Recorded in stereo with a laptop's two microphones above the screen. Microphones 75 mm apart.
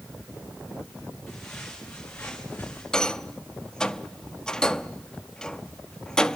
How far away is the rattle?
About 0.9 m.